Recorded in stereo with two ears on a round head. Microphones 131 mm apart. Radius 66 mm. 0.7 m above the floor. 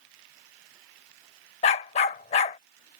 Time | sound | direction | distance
1.6 | a dog barking | 45° left (ahead or behind) | ?